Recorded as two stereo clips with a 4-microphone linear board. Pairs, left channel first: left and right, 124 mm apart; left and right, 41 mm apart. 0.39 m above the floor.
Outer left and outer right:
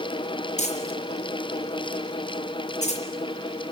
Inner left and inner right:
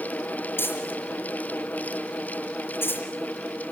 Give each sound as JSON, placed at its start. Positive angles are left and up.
{"t": 0.6, "sound": "crumpling", "side_deg": 75, "distance_m": 5.0}